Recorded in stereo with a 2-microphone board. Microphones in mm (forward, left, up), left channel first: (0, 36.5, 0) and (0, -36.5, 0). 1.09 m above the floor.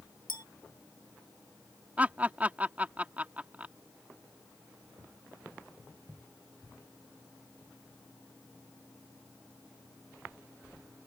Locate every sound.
0.3 s a clink: 75° left (ahead or behind)
2.0 s laughter: 20° right (ahead or behind)